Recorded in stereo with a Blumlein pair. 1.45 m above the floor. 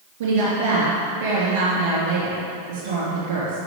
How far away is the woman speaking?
About 2.5 m.